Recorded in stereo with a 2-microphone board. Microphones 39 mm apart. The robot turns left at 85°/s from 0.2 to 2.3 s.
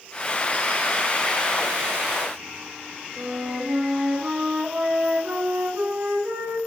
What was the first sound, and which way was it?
A flute, 75° right (ahead or behind).